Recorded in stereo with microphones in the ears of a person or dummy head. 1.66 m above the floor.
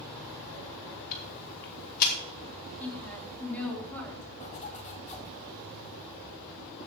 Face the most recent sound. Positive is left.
turn(degrees=35)  # may be behind; listen again after turning